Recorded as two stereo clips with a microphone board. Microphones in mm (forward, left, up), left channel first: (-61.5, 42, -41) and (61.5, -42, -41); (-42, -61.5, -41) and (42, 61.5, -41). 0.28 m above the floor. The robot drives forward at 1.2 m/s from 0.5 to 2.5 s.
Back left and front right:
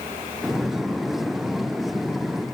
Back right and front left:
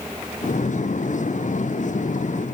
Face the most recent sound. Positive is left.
No sound to turn to.